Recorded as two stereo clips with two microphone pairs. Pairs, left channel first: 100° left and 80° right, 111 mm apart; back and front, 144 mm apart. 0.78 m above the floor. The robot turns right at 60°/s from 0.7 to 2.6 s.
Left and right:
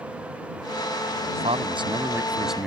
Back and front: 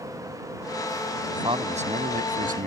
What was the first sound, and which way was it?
A man speaking, 65° right.